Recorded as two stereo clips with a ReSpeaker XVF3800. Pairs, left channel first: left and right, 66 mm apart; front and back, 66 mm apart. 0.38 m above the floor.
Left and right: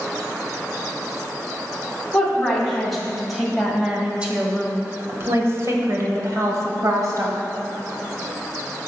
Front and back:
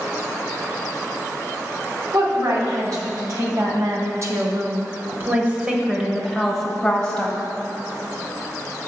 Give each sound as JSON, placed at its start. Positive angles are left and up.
{"t": 2.1, "sound": "a woman speaking", "azimuth_deg": 170, "distance_m": 2.5}